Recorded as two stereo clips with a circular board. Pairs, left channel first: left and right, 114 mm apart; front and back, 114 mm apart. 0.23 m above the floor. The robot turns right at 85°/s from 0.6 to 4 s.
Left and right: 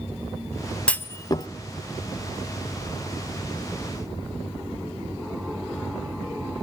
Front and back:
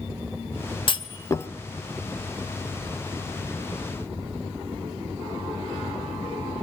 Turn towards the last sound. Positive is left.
turn(degrees=-80)